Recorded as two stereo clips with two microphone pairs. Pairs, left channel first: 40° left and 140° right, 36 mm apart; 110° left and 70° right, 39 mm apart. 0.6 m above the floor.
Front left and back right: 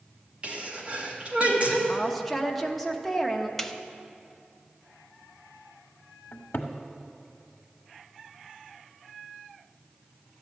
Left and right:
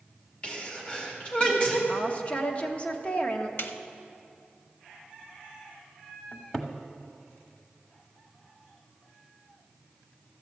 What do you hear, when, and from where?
0.4 s a sneeze: 170° left, 2 m
1.9 s a woman speaking: 120° left, 0.9 m
3.6 s a snare drum: 125° left, 0.6 m
6.3 s a cupboard door: 40° left, 1.1 m